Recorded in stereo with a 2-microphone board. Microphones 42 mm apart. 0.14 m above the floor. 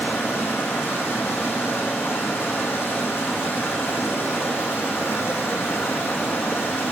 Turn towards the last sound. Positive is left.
turn(degrees=80)